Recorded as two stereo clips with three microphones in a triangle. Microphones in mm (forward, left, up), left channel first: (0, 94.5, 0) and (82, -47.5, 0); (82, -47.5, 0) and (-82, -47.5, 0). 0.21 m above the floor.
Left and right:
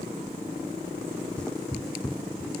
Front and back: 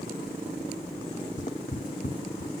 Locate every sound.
1.4 s footsteps: 35° left, 0.7 m